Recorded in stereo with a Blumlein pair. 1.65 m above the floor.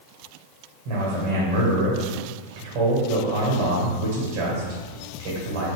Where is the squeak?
I don't hear a squeak.